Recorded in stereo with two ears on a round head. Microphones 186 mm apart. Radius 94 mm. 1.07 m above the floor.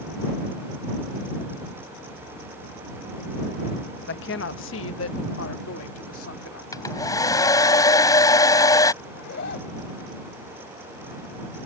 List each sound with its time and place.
4.0 s a woman speaking: 50° left (ahead or behind); by 6.6 s 70° left (ahead or behind)
6.7 s a hair dryer: 15° left (ahead or behind)
9.0 s a zipper: 50° left (ahead or behind)